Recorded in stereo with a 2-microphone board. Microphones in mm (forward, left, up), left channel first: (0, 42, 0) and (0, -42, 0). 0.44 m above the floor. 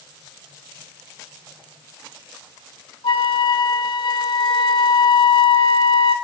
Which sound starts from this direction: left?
A flute, at 3.0 s.